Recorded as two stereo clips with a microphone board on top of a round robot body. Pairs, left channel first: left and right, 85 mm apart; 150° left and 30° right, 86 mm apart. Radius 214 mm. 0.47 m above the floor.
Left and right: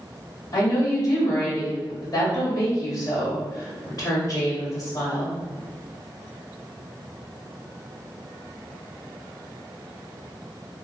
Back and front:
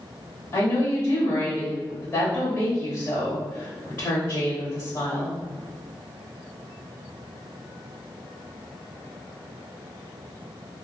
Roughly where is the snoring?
I don't hear snoring.